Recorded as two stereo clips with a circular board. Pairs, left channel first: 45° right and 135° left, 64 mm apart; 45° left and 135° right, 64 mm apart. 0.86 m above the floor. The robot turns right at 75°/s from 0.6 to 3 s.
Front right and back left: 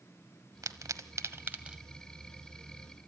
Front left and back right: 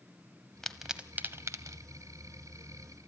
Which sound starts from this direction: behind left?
A pop, at 0.6 s.